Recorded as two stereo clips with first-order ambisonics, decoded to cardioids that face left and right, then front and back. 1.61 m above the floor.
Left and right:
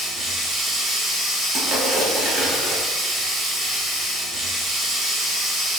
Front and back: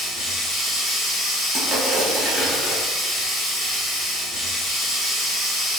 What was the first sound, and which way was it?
Running water, 5° right.